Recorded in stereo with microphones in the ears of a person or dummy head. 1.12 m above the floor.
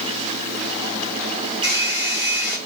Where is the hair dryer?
55° right (ahead or behind), 4 m.